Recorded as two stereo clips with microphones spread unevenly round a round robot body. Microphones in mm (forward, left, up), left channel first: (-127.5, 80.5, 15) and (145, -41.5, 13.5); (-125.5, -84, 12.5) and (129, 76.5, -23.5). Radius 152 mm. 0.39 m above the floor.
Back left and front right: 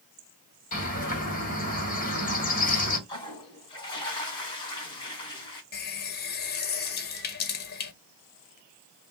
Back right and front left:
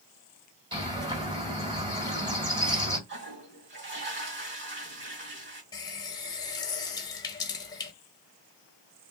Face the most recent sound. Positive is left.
turn(degrees=135)